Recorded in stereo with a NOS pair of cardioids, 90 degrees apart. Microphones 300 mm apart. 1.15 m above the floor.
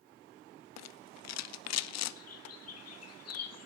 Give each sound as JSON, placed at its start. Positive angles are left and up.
{"t": 0.8, "sound": "a rattle", "azimuth_deg": 60, "distance_m": 0.6}
{"t": 2.2, "sound": "a bird", "azimuth_deg": 55, "distance_m": 1.9}